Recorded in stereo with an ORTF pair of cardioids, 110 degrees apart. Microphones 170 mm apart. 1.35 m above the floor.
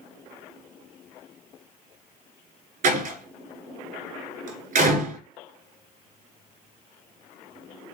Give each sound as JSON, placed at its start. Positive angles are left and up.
{"t": 2.8, "sound": "a door slam", "azimuth_deg": -55, "distance_m": 3.5}